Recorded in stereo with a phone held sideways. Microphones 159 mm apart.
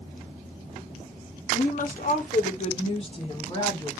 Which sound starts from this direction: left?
A woman speaking, at 1.5 s.